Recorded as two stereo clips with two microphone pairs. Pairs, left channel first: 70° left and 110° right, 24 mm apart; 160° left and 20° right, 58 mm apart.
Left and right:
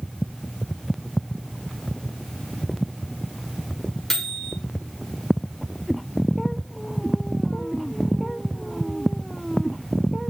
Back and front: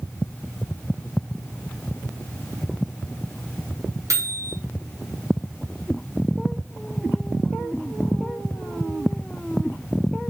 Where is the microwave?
5° right, 1.2 m.